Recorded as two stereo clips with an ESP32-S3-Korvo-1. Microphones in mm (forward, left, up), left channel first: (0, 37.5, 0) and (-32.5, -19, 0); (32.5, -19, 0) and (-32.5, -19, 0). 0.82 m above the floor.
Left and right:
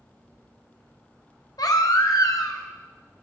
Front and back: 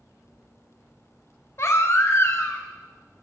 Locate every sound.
1.6 s a baby crying: 45° left, 0.6 m